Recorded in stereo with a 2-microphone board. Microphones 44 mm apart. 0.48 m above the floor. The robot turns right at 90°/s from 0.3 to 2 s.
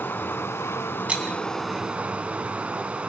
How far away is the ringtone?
I don't hear a ringtone.